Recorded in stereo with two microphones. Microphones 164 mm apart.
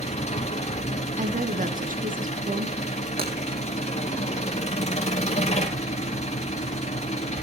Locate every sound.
0.0 s an engine running: 40° left (ahead or behind), 3 m
1.2 s a woman speaking: 55° right (ahead or behind), 1.7 m
3.2 s breaking glass: 65° right (ahead or behind), 4.5 m